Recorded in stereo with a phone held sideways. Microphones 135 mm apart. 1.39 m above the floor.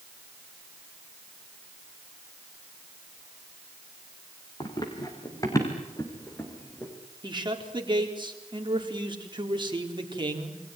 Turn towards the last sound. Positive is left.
turn(degrees=-35)  # may be behind; listen again after turning